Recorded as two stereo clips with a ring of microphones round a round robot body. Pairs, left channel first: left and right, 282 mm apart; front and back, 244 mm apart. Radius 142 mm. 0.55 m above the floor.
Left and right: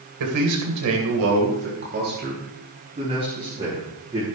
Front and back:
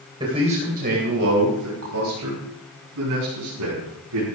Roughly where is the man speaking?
Right.